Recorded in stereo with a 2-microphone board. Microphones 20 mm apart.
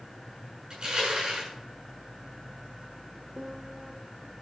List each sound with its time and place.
0.7 s crushing: 40° right (ahead or behind), 7.5 m
3.4 s a piano: 50° right (ahead or behind), 1.2 m